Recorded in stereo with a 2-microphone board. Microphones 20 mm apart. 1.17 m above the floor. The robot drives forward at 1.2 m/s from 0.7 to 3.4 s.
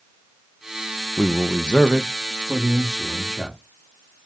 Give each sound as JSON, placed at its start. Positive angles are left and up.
{"t": 1.2, "sound": "a man speaking", "side_deg": 70, "distance_m": 0.6}